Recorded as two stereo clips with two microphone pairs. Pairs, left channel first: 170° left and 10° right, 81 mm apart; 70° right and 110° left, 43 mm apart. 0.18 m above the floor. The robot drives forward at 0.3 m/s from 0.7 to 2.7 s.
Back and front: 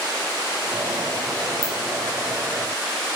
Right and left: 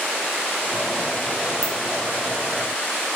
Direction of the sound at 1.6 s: 100° right.